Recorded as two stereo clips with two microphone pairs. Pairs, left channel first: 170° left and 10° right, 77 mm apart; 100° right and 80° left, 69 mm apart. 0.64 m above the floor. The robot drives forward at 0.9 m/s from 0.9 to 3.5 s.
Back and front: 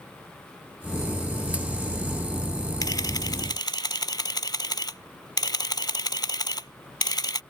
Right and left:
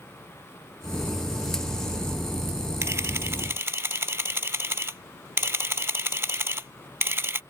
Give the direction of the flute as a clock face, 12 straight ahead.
I don't hear a flute.